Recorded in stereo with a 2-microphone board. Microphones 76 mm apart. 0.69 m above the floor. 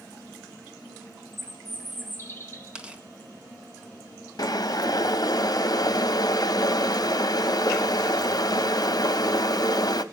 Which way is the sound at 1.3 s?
35° left (ahead or behind).